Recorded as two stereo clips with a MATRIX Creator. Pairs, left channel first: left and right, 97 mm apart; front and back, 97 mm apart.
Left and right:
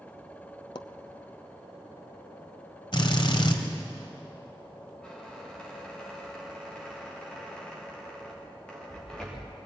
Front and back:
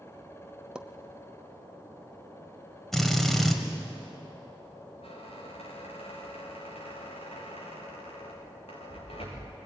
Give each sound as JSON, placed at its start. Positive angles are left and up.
{"t": 0.8, "sound": "a pop", "azimuth_deg": 100, "distance_m": 0.9}
{"t": 2.9, "sound": "a drill", "azimuth_deg": 85, "distance_m": 2.0}
{"t": 5.0, "sound": "a squeak", "azimuth_deg": 10, "distance_m": 6.5}